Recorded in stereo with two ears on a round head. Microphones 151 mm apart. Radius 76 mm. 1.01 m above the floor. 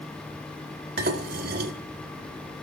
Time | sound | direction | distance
1.0 | dishes clattering | 55° right (ahead or behind) | 2.5 m